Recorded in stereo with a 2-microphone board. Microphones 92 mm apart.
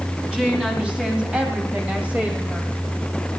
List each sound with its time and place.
0.3 s a woman speaking: 10° right (ahead or behind), 3.5 m; by 2.7 s 20° right (ahead or behind), 2.5 m